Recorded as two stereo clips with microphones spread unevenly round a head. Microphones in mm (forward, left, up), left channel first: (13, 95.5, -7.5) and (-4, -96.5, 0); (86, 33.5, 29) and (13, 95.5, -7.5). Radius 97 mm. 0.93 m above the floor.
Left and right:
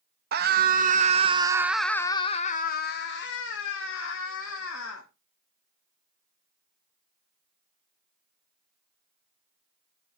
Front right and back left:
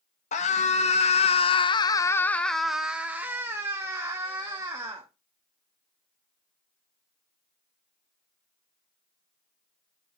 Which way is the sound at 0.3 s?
60° right.